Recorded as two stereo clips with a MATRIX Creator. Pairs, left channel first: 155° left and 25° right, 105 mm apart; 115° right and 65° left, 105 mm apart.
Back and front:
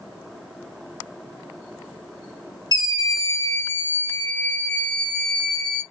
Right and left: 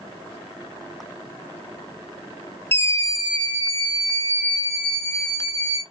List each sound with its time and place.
2.7 s a scream: 175° right, 0.8 m; by 5.8 s 120° right, 2 m